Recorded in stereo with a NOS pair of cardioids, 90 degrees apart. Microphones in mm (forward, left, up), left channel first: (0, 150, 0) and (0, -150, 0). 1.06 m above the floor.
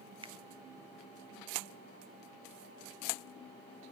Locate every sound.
0.2 s a finger snap: 20° right, 0.5 m